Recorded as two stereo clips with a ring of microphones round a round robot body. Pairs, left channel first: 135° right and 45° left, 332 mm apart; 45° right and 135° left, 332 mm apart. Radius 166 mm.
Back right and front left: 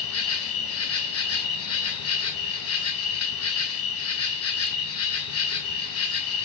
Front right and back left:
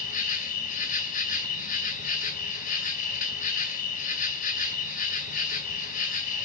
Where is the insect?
105° right, 2.5 m.